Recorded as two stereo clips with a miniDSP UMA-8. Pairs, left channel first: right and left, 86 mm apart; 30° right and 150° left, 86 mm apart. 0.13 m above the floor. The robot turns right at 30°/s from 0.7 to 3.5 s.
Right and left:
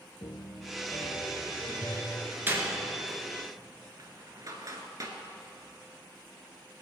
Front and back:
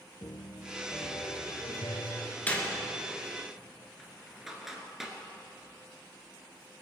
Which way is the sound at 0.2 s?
65° right.